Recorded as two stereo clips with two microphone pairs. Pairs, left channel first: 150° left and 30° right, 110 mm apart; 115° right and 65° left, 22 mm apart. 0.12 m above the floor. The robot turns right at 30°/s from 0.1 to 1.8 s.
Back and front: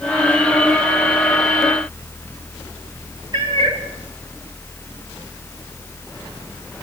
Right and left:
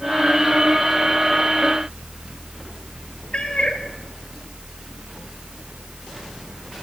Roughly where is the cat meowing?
Right.